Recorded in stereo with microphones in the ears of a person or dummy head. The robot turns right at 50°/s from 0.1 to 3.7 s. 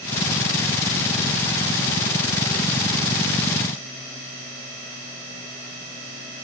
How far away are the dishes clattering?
I don't hear dishes clattering.